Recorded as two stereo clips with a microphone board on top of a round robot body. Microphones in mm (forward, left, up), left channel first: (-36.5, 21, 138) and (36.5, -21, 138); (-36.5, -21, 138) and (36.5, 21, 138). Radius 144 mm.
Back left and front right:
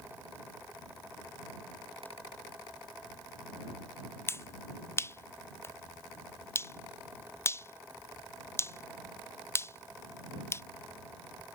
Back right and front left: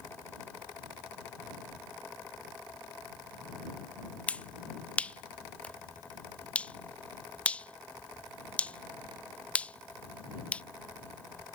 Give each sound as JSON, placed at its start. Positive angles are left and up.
{"t": 4.3, "sound": "a finger snap", "azimuth_deg": 150}